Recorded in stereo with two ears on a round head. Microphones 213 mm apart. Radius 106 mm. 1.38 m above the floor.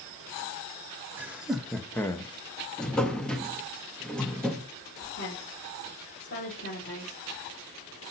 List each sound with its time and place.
1.2 s laughter: 10° right (ahead or behind), 1.4 m; by 2.3 s 20° left (ahead or behind), 0.8 m
2.8 s a drawer: 5° left (ahead or behind), 0.9 m
5.1 s a woman speaking: 45° left (ahead or behind), 3.5 m